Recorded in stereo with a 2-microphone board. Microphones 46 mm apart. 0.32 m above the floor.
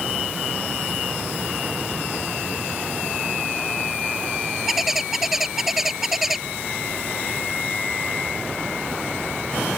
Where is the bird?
10° right (ahead or behind).